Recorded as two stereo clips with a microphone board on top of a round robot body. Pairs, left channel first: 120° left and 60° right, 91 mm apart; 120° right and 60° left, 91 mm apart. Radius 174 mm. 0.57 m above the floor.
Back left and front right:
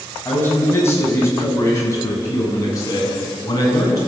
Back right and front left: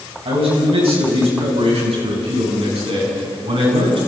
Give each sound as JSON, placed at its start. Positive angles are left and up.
{"t": 0.2, "sound": "a man speaking", "azimuth_deg": 55, "distance_m": 6.5}